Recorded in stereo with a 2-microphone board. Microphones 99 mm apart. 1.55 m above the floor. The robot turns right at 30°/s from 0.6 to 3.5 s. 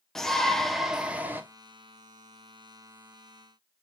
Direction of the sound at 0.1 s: 5° left (ahead or behind).